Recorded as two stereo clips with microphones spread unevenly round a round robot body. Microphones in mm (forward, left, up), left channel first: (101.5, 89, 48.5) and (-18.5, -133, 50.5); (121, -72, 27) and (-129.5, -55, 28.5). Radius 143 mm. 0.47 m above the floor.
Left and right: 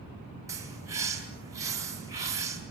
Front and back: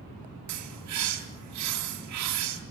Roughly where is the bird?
Behind.